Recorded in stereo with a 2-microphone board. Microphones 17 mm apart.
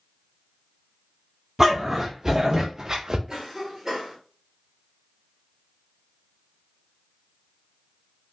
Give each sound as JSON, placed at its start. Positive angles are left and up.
{"t": 1.6, "sound": "a dog barking", "side_deg": -15, "distance_m": 1.4}
{"t": 3.3, "sound": "a cough", "side_deg": -25, "distance_m": 1.3}